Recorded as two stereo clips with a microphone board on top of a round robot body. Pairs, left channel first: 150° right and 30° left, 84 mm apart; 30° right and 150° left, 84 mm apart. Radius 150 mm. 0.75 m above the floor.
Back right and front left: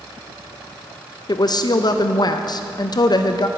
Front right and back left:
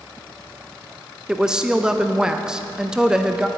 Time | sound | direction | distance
1.3 | a woman speaking | 130° right | 0.6 m